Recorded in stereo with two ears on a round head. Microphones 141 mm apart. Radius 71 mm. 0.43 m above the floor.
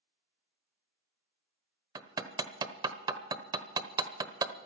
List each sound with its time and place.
1.9 s hammering: 25° right (ahead or behind), 1.0 m